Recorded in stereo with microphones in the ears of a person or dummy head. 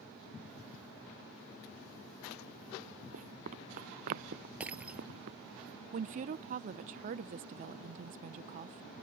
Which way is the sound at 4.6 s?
10° right (ahead or behind).